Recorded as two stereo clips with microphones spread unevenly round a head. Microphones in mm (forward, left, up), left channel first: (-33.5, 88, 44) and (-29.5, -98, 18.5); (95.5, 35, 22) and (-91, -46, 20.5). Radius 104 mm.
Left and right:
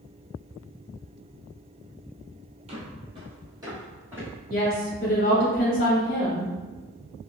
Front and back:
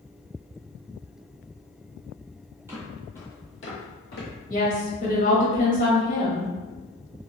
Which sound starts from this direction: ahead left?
A woman speaking, at 4.5 s.